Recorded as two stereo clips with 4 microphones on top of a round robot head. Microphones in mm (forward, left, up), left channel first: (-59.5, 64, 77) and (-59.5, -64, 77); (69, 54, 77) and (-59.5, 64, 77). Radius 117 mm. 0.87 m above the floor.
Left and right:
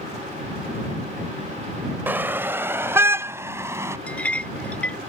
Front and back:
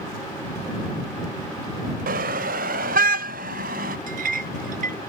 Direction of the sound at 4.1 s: 170° left.